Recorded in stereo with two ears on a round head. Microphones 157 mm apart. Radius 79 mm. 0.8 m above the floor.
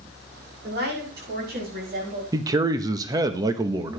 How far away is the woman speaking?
About 8.5 m.